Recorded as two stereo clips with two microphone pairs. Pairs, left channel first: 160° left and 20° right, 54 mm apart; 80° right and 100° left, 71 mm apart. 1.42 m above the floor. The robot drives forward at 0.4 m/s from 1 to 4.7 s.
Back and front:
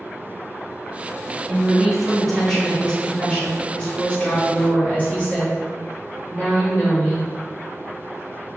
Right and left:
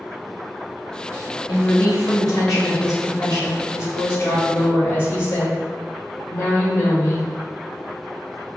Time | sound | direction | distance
1.5 | a woman speaking | 95° right | 1.1 m